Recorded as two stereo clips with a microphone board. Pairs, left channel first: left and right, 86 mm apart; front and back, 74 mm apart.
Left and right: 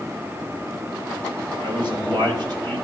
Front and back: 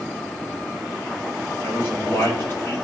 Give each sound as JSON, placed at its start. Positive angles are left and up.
{"t": 1.6, "sound": "a man speaking", "azimuth_deg": -60, "distance_m": 5.0}